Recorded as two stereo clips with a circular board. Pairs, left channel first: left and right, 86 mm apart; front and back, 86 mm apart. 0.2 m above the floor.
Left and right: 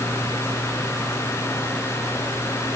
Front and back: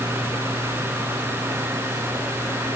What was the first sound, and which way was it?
Only background noise.